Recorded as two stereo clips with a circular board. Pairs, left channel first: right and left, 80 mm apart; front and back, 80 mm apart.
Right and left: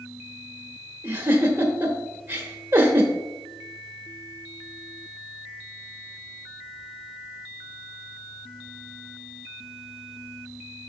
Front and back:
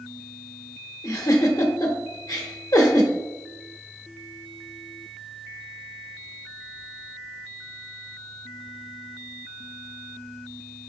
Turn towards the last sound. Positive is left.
turn(degrees=30)